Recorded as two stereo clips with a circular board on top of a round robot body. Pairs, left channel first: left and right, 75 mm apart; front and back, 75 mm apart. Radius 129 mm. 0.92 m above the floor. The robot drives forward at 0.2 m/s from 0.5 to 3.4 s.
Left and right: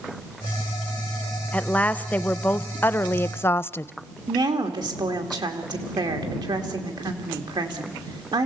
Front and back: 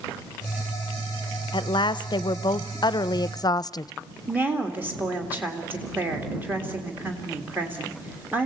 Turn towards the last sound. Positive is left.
turn(degrees=-110)